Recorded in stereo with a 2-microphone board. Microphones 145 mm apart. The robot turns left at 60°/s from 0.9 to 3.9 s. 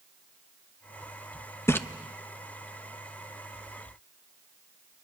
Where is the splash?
15° left (ahead or behind), 0.7 m.